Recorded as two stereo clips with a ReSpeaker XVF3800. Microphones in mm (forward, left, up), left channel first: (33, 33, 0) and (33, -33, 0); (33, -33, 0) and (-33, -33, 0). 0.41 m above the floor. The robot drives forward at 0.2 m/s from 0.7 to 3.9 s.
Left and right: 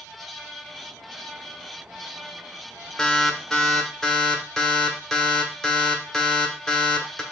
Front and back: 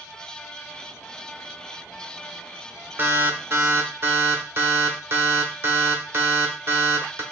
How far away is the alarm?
About 1.2 m.